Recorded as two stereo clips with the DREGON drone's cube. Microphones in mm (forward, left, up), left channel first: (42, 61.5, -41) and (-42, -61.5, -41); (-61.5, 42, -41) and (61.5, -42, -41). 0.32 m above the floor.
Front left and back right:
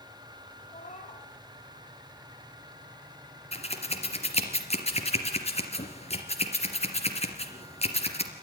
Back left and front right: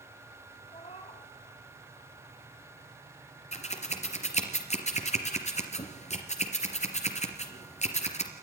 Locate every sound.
0.7 s a cat meowing: 100° left, 6 m
3.5 s scissors: 105° left, 3 m